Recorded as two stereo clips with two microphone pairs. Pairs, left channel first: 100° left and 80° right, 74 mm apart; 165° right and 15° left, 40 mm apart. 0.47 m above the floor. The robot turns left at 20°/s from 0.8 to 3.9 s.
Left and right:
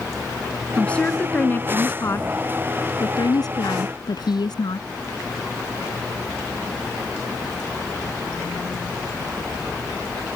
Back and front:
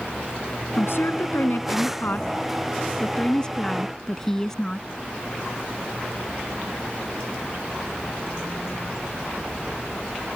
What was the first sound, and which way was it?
A woman speaking, straight behind.